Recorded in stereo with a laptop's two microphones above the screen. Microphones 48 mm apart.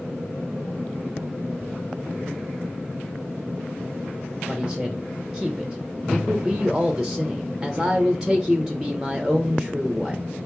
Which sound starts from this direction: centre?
A man speaking, at 4.5 s.